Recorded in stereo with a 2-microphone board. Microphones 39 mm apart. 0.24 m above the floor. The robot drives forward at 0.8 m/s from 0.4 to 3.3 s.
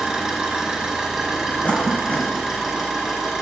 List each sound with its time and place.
0.0 s an engine running: 10° right (ahead or behind), 3.5 m; by 3.4 s 5° right (ahead or behind), 5.5 m
1.6 s a cough: 40° left (ahead or behind), 2 m; by 2.3 s 35° left (ahead or behind), 2.5 m